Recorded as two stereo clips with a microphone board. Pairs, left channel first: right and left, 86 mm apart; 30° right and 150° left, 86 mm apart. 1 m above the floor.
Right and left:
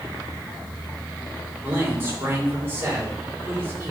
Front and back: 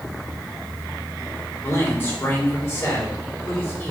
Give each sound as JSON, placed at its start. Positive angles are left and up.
{"t": 1.6, "sound": "a man speaking", "azimuth_deg": 25, "distance_m": 3.0}